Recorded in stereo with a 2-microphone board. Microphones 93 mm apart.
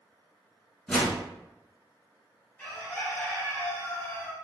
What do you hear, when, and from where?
0.9 s a whoosh: 10° left (ahead or behind), 1.1 m
2.6 s a bird: 20° left (ahead or behind), 1.0 m